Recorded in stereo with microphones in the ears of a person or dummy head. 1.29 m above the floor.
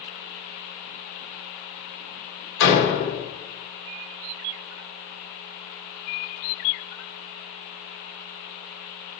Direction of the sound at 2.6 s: 80° left.